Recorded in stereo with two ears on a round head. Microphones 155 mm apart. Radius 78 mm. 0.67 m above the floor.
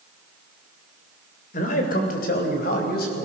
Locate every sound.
1.5 s a man speaking: 45° left (ahead or behind), 3 m; by 3.2 s 55° left (ahead or behind), 5 m